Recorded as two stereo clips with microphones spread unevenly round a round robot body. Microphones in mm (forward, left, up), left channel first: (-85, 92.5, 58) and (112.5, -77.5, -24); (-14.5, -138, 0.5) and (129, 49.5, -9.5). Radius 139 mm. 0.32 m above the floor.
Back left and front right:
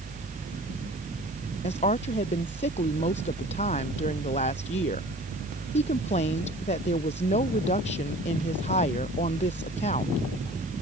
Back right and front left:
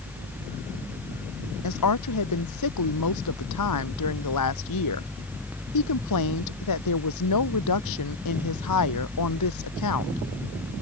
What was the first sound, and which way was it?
A woman speaking, 155° right.